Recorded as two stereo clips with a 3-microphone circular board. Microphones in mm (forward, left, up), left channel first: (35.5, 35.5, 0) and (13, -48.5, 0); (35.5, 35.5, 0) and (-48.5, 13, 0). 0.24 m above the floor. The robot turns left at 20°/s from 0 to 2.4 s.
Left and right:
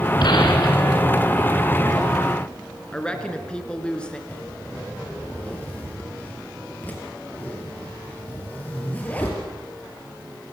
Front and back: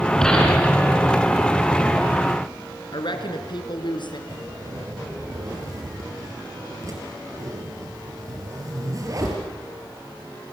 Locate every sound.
0.2 s a gunshot: 95° left, 3.5 m; by 1.0 s 80° left, 3.5 m
2.9 s a woman speaking: 5° right, 3 m
4.3 s a zipper: 145° left, 4.5 m